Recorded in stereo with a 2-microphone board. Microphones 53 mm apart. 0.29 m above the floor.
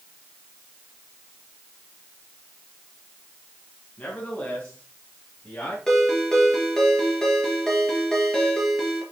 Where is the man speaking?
25° left (ahead or behind), 3 m; by 5.8 s 15° left (ahead or behind), 4.5 m.